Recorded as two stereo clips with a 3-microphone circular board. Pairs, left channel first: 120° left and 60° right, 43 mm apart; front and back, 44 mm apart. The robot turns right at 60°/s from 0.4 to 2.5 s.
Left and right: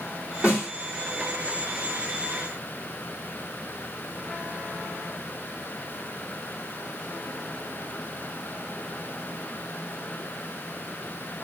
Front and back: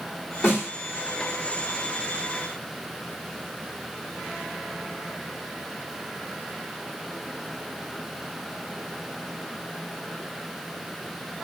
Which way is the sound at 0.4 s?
Straight ahead.